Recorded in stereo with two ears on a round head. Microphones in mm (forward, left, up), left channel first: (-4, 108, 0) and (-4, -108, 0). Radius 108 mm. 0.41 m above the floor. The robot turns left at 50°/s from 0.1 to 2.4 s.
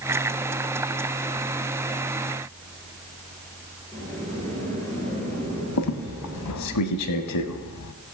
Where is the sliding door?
10° left (ahead or behind), 3.5 m.